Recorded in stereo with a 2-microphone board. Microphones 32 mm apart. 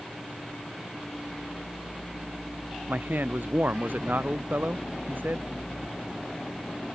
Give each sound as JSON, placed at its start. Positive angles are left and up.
{"t": 2.9, "sound": "a man speaking", "side_deg": -80}